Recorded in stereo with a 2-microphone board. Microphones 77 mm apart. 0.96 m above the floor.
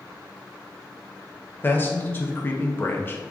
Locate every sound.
1.6 s a man speaking: 25° left (ahead or behind), 0.7 m